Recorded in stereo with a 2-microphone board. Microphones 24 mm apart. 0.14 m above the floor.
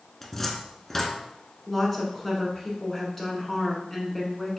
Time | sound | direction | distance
0.2 | a cupboard door | 10° left (ahead or behind) | 0.6 m
1.7 | a woman speaking | 10° left (ahead or behind) | 1.2 m